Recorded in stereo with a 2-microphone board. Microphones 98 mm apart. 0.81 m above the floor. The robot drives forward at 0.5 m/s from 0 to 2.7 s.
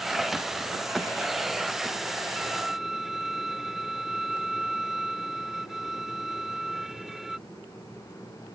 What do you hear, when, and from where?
2.4 s a violin: centre (ahead or behind); by 7.4 s 5° right (ahead or behind)